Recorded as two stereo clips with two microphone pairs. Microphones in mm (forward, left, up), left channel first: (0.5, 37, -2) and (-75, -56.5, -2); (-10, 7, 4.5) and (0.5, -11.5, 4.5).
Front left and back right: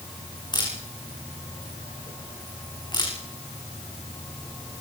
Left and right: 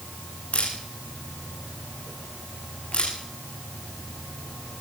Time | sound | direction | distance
0.5 | a camera shutter | 105° left | 9 m